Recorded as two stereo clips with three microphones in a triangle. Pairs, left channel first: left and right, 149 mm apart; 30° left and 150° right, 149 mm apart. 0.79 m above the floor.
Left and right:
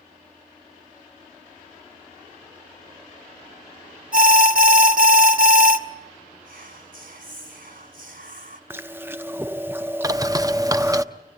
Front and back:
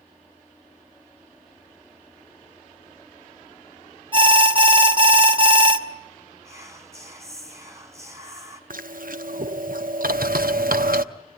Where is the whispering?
80° right, 2.5 m.